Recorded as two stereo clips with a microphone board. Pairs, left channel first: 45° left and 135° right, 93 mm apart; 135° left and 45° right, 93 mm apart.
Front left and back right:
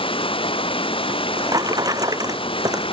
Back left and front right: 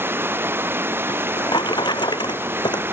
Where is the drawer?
175° left.